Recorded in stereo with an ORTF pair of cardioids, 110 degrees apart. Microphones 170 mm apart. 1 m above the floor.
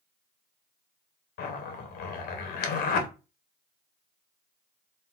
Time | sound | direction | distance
1.4 | a zipper | 60° left | 0.8 m